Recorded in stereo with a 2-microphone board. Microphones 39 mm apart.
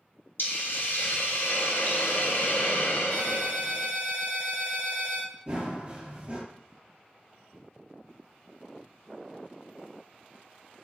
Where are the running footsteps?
30° right (ahead or behind), 1.5 m.